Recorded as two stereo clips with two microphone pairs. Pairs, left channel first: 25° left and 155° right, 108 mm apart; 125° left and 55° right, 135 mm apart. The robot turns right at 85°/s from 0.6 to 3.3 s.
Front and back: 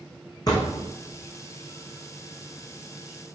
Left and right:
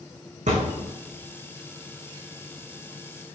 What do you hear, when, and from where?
0.5 s a thud: 30° right, 3 m; by 0.9 s 10° right, 3 m